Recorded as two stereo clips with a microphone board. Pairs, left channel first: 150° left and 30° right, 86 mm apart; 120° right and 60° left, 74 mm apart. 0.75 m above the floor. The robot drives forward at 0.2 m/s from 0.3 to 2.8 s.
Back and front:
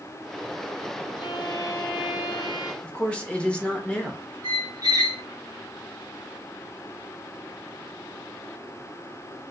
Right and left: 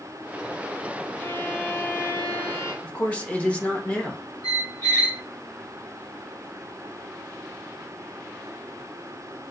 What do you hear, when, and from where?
1.2 s a violin: 175° left, 0.6 m; by 2.7 s straight behind, 0.9 m
2.8 s a man speaking: 160° right, 0.6 m
4.4 s a squeak: 75° right, 0.9 m